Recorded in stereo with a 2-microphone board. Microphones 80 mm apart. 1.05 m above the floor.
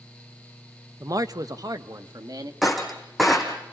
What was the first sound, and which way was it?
A man speaking, 45° right (ahead or behind).